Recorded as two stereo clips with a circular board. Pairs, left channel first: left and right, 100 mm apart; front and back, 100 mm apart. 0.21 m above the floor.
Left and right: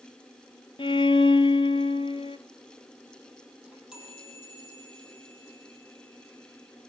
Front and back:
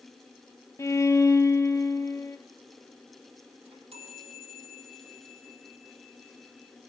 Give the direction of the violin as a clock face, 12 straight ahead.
10 o'clock.